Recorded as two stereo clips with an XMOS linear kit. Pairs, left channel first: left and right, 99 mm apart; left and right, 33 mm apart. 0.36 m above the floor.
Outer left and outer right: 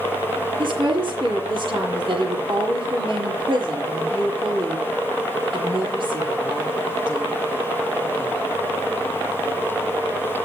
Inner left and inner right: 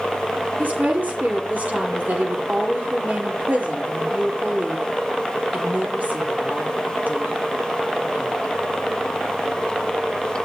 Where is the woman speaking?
55° right (ahead or behind), 7.5 m.